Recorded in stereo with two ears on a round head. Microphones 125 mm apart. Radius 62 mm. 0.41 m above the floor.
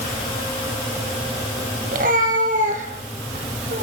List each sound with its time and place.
1.9 s a cat meowing: 60° right (ahead or behind), 4.5 m; by 3.8 s 50° right (ahead or behind), 6 m